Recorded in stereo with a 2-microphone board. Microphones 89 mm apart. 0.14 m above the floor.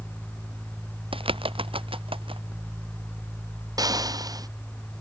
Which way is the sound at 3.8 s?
45° right (ahead or behind).